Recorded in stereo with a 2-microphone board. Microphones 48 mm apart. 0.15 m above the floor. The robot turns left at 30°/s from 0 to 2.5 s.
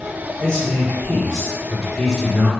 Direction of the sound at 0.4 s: 35° left.